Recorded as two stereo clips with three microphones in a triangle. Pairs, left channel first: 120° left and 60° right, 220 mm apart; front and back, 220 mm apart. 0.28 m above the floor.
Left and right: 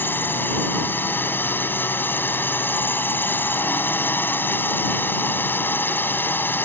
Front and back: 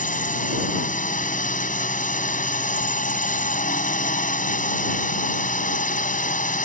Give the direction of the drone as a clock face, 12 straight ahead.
11 o'clock.